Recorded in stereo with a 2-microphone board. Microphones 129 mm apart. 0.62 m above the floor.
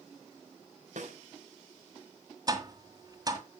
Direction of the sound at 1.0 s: 65° right (ahead or behind).